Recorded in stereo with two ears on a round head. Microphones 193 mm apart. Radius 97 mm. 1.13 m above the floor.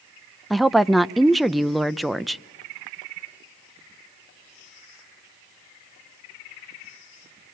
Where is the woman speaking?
Centre (ahead or behind), 0.6 m.